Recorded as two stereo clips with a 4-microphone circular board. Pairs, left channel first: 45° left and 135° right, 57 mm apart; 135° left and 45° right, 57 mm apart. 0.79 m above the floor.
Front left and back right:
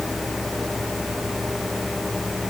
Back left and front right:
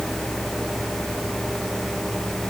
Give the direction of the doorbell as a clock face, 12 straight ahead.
I don't hear a doorbell.